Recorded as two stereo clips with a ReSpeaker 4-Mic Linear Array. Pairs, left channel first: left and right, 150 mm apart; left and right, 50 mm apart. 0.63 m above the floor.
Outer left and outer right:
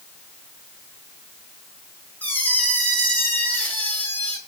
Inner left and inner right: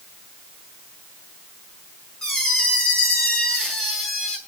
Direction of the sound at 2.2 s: 10° left (ahead or behind).